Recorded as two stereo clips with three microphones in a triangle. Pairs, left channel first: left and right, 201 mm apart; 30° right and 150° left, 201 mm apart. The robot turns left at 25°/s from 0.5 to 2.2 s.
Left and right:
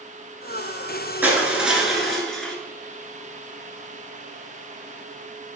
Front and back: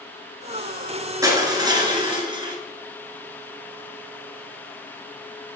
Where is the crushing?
160° right, 1.5 m; by 2.5 s 175° left, 1.5 m.